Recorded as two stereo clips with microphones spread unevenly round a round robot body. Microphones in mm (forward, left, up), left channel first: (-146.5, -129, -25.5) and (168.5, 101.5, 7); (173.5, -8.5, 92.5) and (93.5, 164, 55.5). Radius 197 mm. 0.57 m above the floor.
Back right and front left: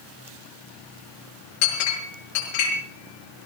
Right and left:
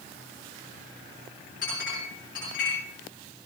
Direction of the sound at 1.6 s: 130° right.